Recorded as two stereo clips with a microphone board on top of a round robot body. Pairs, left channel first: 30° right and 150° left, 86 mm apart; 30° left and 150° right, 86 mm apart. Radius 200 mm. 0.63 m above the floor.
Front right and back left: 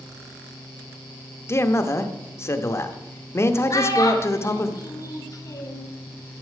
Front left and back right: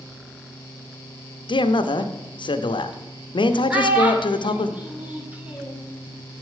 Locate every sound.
1.5 s a man speaking: 25° left, 1.0 m
3.7 s a child speaking: 75° right, 2.5 m